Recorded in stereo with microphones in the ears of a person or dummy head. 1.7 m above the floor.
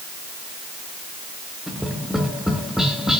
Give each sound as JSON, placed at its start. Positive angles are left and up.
{"t": 1.7, "sound": "tapping", "side_deg": 0, "distance_m": 2.5}